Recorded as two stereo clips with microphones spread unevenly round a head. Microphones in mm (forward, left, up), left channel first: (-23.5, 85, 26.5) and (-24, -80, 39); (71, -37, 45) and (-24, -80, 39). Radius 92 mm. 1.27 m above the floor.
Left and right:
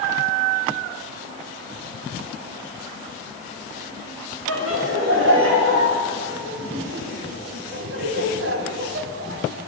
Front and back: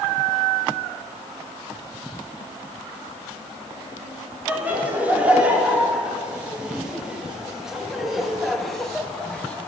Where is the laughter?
80° right, 4 m; by 9.7 s 55° right, 1.7 m.